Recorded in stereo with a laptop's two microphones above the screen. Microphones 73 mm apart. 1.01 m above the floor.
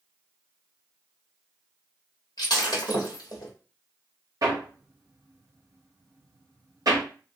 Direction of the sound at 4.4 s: 55° right (ahead or behind).